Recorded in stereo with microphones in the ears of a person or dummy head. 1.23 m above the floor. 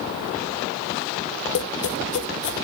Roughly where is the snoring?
I don't hear snoring.